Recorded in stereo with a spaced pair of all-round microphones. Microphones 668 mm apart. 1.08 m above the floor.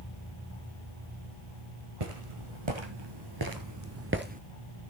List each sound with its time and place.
2.0 s footsteps: 50° right (ahead or behind), 1.9 m; by 4.4 s 10° right (ahead or behind), 1.1 m